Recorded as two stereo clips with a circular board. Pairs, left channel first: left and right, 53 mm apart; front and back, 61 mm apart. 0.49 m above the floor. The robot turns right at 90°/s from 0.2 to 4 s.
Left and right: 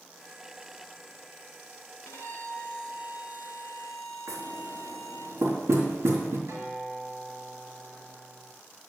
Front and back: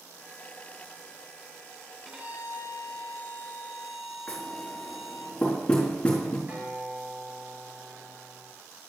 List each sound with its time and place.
2.0 s a violin: 95° left, 2.5 m; by 5.3 s 90° right, 2.5 m
4.3 s knocking: 75° right, 4 m
6.5 s a guitar: 115° right, 5.5 m